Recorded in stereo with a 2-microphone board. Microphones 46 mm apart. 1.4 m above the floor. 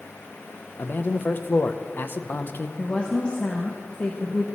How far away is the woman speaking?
About 1.1 m.